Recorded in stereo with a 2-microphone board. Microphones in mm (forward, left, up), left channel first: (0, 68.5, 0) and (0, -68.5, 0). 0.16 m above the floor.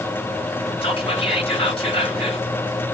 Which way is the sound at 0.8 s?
40° left (ahead or behind).